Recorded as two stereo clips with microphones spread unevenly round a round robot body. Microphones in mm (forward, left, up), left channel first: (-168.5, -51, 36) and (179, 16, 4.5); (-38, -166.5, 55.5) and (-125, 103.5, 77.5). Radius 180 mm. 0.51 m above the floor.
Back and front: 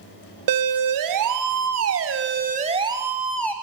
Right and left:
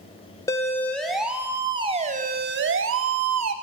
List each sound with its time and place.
0.5 s a siren: 5° left, 2.5 m; by 3.5 s 105° left, 1.8 m